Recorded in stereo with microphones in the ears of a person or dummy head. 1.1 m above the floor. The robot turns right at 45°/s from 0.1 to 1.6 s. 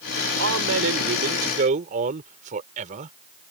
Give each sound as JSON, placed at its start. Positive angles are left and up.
{"t": 0.4, "sound": "a man speaking", "azimuth_deg": -95}